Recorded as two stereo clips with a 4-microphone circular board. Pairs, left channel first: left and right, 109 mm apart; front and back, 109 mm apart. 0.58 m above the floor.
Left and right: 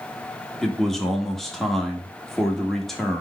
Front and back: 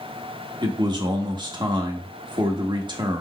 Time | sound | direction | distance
0.6 | a man speaking | 175° left | 0.9 m